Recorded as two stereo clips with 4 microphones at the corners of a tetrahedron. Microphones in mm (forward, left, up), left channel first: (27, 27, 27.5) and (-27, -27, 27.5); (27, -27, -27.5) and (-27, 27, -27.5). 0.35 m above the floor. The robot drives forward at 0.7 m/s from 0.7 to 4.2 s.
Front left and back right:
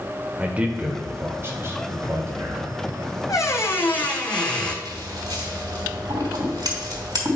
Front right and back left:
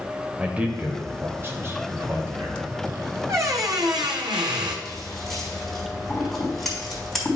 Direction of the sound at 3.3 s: 85° left.